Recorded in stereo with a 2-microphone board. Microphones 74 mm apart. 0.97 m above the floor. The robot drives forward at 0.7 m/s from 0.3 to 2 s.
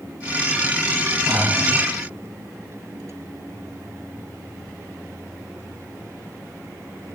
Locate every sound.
1.3 s breathing: 30° right (ahead or behind), 1.0 m; by 1.7 s 25° right (ahead or behind), 1.3 m